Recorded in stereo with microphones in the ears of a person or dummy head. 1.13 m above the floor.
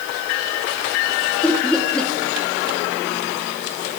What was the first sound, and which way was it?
Laughter, 5° left (ahead or behind).